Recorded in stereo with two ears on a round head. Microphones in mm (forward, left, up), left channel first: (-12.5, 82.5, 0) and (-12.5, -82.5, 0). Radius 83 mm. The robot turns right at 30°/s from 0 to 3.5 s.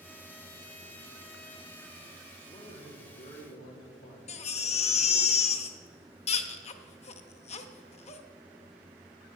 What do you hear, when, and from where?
2.5 s a man speaking: 25° left, 2 m; by 5.3 s 55° left, 2 m
4.3 s a baby crying: 35° left (ahead or behind), 0.8 m